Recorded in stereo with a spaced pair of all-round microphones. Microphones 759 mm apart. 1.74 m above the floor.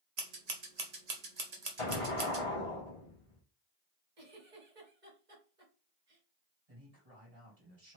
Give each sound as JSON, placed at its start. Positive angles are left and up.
{"t": 0.2, "sound": "scissors", "side_deg": -55, "distance_m": 1.1}
{"t": 1.8, "sound": "an explosion", "side_deg": 40, "distance_m": 1.3}
{"t": 4.2, "sound": "a giggle", "side_deg": -70, "distance_m": 2.0}
{"t": 6.7, "sound": "a man speaking", "side_deg": -45, "distance_m": 2.5}